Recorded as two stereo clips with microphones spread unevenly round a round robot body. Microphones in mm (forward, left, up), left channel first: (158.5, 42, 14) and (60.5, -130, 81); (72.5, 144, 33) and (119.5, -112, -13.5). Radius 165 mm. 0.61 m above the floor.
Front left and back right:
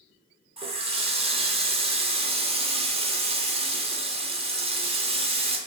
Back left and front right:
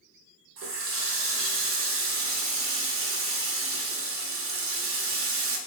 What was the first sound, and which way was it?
A running tap, 45° right.